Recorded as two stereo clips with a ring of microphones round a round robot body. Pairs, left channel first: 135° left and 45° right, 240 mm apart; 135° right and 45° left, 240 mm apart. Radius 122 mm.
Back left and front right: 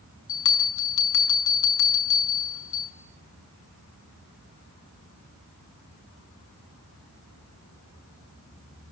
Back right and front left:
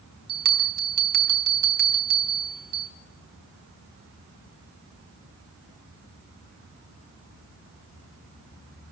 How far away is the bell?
About 5.5 m.